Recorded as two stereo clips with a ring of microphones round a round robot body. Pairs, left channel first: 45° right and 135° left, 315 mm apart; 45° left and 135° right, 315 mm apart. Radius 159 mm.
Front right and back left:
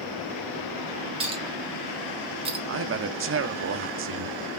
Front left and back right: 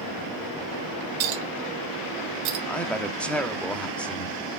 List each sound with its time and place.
1.2 s a clink: 150° right, 1.6 m
2.7 s a man speaking: 130° left, 0.9 m